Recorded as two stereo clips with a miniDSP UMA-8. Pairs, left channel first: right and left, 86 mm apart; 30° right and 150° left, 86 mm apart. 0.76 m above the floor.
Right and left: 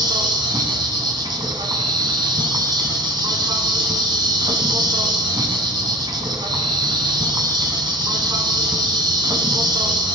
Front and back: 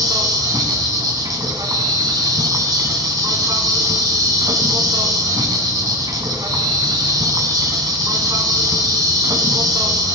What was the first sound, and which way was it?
An insect, 115° left.